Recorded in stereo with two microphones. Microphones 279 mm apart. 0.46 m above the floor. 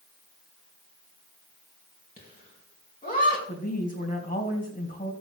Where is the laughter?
30° left (ahead or behind), 4 m.